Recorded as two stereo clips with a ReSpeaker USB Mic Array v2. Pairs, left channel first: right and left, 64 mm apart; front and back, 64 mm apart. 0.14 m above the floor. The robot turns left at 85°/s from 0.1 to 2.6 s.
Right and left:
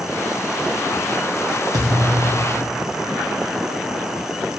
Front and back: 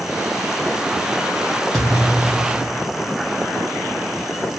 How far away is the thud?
About 1.8 m.